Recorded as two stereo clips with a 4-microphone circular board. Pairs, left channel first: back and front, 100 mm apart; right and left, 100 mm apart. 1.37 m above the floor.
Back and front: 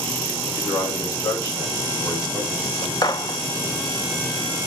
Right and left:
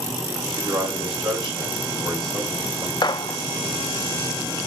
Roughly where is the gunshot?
Behind right.